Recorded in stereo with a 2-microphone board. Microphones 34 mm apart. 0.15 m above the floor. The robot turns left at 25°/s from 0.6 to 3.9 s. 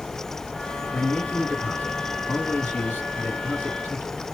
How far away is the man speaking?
About 2.0 m.